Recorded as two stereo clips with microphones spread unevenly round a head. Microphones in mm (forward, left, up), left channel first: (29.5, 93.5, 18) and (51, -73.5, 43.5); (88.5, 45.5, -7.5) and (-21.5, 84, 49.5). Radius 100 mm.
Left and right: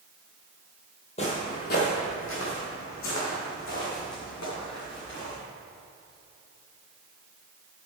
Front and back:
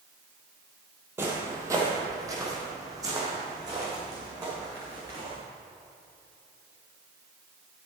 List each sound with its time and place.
1.2 s footsteps: 155° left, 1.8 m; by 5.3 s 110° left, 6 m